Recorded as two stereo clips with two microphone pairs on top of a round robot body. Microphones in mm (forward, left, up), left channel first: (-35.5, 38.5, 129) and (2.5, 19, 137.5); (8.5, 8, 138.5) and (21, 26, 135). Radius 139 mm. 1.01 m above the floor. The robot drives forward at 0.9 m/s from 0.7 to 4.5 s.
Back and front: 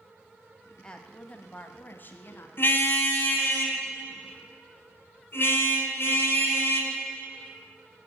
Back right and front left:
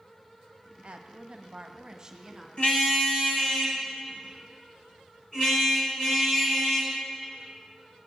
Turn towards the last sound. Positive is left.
turn(degrees=-170)